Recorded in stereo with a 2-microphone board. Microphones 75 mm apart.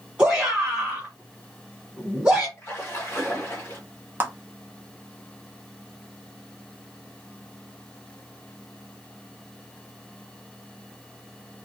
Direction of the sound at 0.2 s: 15° right (ahead or behind).